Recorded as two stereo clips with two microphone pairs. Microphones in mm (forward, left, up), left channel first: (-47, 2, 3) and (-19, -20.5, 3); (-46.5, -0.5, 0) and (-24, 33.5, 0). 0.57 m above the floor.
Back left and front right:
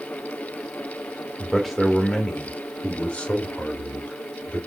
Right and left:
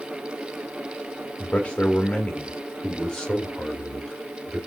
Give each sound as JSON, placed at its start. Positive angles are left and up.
{"t": 1.4, "sound": "a man speaking", "azimuth_deg": -125, "distance_m": 1.2}